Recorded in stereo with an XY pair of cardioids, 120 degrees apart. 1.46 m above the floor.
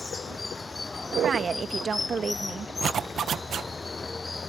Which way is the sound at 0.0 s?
20° left.